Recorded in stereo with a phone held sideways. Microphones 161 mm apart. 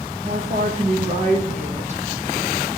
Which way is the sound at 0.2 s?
45° right (ahead or behind).